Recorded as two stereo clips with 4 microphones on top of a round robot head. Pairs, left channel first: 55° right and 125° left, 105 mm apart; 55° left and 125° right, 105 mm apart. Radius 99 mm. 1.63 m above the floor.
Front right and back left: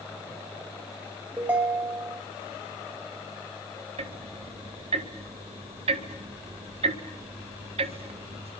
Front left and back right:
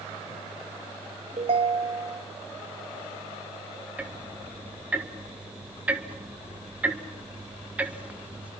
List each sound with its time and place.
1.4 s a ringtone: 160° right, 3 m
4.0 s ticking: 155° left, 1.8 m